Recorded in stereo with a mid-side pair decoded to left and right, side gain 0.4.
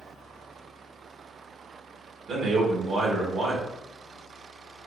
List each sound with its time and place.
2.3 s a man speaking: 65° right, 1.1 m